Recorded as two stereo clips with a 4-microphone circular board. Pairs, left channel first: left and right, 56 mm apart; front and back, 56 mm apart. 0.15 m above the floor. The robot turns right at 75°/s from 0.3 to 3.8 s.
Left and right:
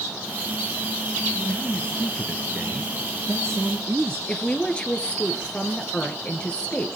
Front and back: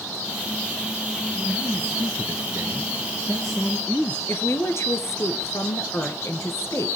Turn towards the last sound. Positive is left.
turn(degrees=20)